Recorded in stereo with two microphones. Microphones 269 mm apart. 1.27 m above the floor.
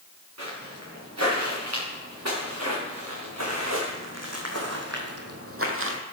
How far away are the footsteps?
About 7.5 m.